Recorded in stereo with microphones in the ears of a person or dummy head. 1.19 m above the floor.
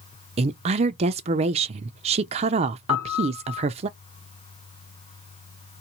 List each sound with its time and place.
0.4 s a woman speaking: 30° right (ahead or behind), 0.5 m
2.9 s a piano: 65° left (ahead or behind), 2.5 m